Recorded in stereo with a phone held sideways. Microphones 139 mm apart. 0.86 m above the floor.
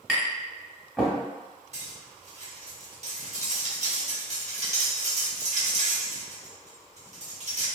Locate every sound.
0.1 s tapping: centre (ahead or behind), 1.0 m
1.7 s cutlery clinking: 50° right (ahead or behind), 0.8 m